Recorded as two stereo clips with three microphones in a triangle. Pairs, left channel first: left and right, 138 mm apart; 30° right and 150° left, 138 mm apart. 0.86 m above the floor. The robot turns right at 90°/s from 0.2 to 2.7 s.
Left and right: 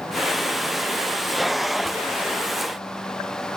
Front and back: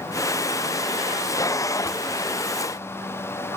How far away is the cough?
No cough in this recording.